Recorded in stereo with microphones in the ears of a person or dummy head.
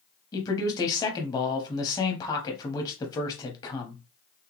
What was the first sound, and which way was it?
A man speaking, 20° left (ahead or behind).